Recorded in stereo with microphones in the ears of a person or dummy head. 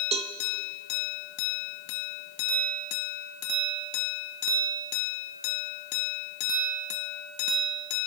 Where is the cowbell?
25° right (ahead or behind), 0.5 m.